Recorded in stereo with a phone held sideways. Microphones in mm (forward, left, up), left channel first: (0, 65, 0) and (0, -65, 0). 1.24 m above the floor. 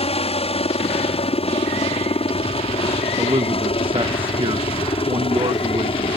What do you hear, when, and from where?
0.0 s a helicopter: 50° left (ahead or behind); by 6.2 s 45° left (ahead or behind)
3.2 s a man speaking: 45° right (ahead or behind)